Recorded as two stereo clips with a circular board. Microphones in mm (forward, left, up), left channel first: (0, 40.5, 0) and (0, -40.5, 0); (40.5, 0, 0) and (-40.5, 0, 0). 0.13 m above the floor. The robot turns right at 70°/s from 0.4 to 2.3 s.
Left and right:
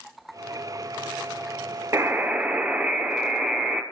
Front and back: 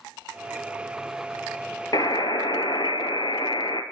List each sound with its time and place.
1.9 s a buzzer: 40° right, 0.7 m; by 3.8 s 15° right, 0.7 m